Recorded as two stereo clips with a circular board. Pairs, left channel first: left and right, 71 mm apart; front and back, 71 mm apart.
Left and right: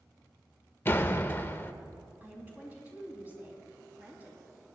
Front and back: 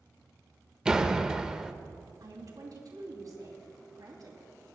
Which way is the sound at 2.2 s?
155° right.